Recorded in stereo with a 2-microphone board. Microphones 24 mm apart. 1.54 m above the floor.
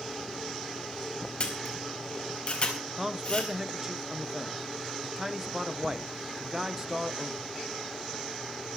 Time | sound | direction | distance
1.4 | a camera shutter | 45° left (ahead or behind) | 4.5 m
3.0 | a man speaking | 20° right (ahead or behind) | 1.2 m